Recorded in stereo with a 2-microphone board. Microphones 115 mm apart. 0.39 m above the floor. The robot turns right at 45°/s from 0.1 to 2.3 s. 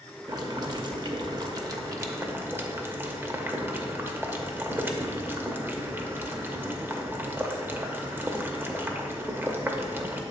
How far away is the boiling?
About 0.6 m.